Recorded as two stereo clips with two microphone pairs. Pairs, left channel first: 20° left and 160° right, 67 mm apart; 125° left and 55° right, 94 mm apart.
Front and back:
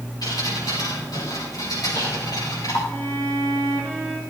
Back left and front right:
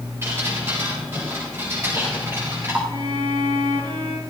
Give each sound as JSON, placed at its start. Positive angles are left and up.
{"t": 0.2, "sound": "dripping", "azimuth_deg": 5, "distance_m": 7.0}
{"t": 2.9, "sound": "a violin", "azimuth_deg": -50, "distance_m": 4.0}